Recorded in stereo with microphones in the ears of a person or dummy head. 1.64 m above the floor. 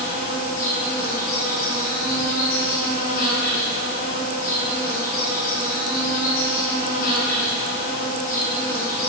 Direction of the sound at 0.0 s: 35° left (ahead or behind).